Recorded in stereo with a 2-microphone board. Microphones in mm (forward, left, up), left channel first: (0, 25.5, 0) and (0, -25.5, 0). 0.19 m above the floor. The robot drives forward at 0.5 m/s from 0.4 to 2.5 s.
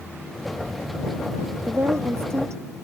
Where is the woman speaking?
65° right (ahead or behind); by 2.6 s 70° right (ahead or behind).